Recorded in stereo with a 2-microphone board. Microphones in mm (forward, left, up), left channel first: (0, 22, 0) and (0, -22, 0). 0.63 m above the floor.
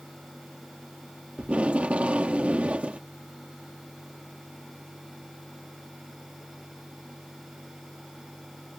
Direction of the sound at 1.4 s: 30° right (ahead or behind).